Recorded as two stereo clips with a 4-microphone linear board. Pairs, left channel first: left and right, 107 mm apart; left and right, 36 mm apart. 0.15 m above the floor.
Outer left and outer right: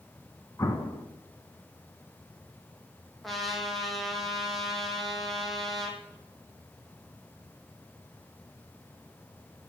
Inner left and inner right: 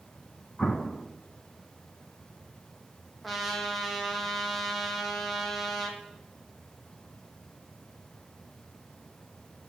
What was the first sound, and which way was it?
An explosion, 30° left (ahead or behind).